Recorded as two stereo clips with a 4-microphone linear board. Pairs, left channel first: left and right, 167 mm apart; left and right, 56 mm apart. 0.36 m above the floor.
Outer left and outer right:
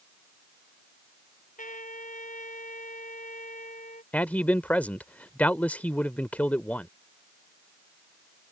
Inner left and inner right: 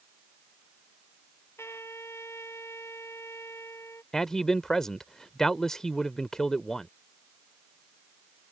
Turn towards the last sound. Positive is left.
turn(degrees=10)  # may be behind; listen again after turning